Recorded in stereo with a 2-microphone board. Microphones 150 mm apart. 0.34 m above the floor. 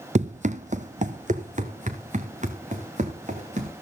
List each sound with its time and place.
0.1 s running footsteps: 50° right (ahead or behind), 0.6 m; by 3.7 s 55° right (ahead or behind), 3 m